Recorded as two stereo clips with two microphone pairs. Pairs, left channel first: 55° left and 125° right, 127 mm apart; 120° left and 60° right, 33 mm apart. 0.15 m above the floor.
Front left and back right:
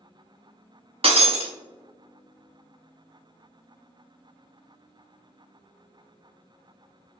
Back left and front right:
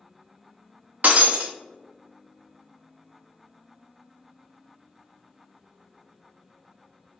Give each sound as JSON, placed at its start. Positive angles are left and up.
{"t": 1.0, "sound": "breaking glass", "azimuth_deg": -85, "distance_m": 0.9}